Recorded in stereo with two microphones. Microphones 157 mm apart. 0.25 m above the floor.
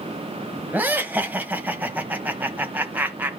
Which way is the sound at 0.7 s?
10° right (ahead or behind).